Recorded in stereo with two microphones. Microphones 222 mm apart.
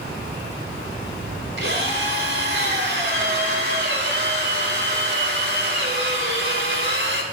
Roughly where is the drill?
Right.